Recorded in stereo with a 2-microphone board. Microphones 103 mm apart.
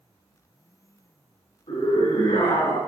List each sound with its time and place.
1.7 s a scream: 75° left (ahead or behind), 6 m